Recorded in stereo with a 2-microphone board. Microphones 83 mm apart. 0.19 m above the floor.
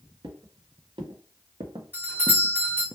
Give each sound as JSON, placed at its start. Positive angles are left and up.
{"t": 0.2, "sound": "footsteps", "side_deg": -85, "distance_m": 2.0}
{"t": 1.9, "sound": "a doorbell", "side_deg": -25, "distance_m": 1.8}